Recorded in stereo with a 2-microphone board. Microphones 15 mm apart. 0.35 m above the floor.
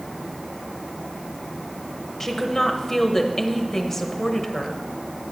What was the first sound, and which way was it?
A woman speaking, 20° left (ahead or behind).